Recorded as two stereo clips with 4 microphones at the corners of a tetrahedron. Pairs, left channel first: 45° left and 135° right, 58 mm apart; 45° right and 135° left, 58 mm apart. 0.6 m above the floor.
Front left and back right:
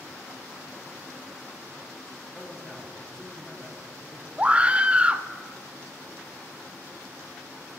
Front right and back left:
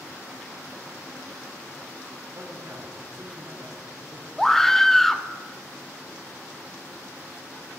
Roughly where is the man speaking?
Behind left.